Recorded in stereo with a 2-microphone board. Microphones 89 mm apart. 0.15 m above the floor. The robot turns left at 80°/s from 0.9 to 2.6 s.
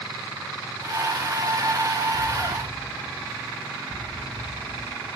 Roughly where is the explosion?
Behind.